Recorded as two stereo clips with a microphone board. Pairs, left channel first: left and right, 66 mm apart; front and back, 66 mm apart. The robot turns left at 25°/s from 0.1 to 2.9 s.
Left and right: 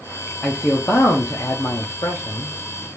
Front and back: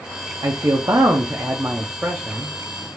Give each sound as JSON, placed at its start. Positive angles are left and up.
{"t": 0.4, "sound": "a man speaking", "azimuth_deg": 155, "distance_m": 0.7}